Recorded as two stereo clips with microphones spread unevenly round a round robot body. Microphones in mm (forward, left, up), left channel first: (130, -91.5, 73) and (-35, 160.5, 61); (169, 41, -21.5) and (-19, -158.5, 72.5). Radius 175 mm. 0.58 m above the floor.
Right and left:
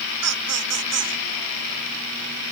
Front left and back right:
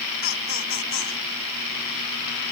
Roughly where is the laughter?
Left.